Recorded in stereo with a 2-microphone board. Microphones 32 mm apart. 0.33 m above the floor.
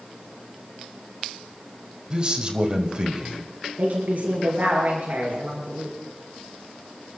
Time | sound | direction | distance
2.1 | a man speaking | 25° right (ahead or behind) | 1.9 m
3.8 | a woman speaking | 50° right (ahead or behind) | 5 m